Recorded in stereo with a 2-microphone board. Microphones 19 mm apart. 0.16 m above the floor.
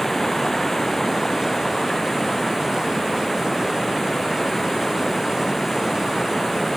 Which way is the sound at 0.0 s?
15° left (ahead or behind).